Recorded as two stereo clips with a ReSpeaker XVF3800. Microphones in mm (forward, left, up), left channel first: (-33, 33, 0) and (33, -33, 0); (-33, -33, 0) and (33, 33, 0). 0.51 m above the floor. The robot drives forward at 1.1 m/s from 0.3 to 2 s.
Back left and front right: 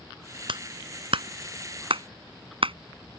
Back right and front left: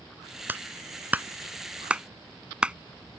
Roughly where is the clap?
Ahead right.